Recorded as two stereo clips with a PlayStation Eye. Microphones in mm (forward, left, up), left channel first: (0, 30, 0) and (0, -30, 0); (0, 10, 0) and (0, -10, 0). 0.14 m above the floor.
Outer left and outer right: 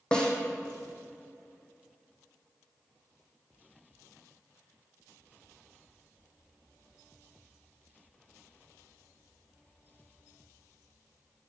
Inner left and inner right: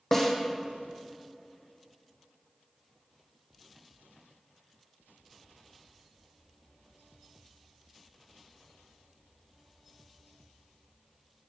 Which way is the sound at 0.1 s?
15° left (ahead or behind).